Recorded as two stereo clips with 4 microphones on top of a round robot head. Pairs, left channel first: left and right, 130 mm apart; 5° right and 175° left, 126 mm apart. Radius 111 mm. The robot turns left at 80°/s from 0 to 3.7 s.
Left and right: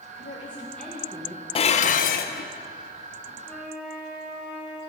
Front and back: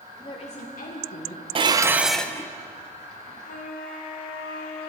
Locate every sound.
0.2 s a woman speaking: 50° left, 1.7 m; by 1.4 s 45° right, 1.7 m
1.6 s dishes clattering: 135° left, 0.7 m; by 2.5 s 55° left, 0.7 m
3.5 s a flute: 10° left, 2.0 m; by 4.9 s 10° right, 2.0 m